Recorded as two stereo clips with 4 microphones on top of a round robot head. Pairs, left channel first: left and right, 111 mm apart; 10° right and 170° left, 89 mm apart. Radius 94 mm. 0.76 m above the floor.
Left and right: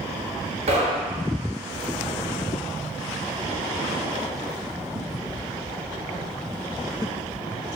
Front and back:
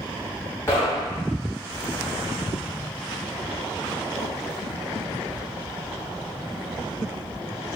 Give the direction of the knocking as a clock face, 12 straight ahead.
3 o'clock.